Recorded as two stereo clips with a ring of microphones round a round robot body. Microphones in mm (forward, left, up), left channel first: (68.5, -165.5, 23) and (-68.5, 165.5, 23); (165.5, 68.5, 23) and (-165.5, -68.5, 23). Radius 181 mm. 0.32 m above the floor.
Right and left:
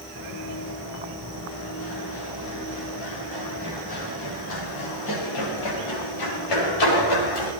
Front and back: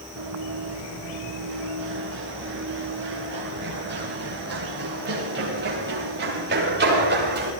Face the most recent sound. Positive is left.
turn(degrees=-95)